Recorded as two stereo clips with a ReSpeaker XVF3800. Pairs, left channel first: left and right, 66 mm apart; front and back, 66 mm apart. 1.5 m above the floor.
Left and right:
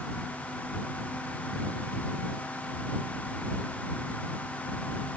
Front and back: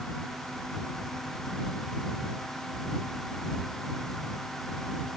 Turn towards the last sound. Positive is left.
No sound to turn to.